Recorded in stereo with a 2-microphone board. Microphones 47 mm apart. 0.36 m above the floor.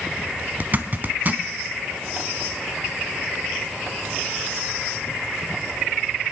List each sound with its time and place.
0.6 s a zipper: 40° right (ahead or behind), 0.9 m